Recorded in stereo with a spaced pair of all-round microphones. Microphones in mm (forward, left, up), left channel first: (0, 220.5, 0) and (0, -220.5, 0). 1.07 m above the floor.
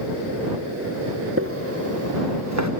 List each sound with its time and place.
1.4 s footsteps: 30° right (ahead or behind); by 2.7 s 40° right (ahead or behind)